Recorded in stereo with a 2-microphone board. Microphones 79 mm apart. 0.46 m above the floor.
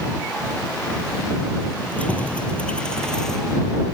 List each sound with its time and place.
1.8 s keys jangling: 15° left (ahead or behind); by 3.7 s 5° left (ahead or behind)